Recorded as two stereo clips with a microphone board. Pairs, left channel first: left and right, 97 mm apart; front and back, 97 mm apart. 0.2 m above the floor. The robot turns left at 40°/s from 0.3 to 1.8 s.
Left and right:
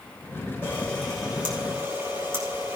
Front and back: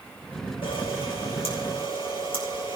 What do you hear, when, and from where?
0.6 s a camera shutter: 20° left, 5.5 m; by 2.8 s 25° right, 5.5 m